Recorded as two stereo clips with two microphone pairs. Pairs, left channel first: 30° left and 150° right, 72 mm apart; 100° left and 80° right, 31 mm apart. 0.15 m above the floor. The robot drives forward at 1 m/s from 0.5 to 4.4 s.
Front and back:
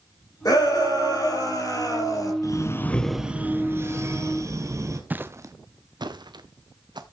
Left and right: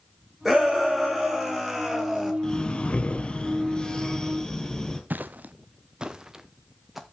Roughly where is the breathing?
Ahead left.